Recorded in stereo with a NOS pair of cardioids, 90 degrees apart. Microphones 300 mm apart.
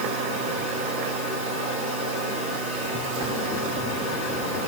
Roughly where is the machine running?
Ahead right.